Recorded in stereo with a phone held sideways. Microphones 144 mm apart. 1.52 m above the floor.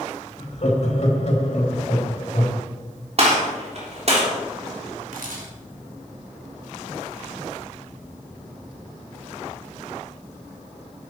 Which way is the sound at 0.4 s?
50° left (ahead or behind).